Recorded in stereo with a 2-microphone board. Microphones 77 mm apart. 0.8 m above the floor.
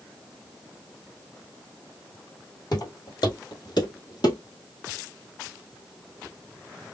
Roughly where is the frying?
I don't hear frying.